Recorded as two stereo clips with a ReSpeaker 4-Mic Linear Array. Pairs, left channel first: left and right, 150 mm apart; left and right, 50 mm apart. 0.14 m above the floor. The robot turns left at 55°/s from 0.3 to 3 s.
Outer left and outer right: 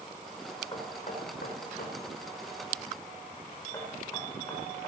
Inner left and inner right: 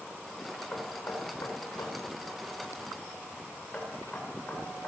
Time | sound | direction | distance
0.7 | knocking | 30° left (ahead or behind) | 5.5 m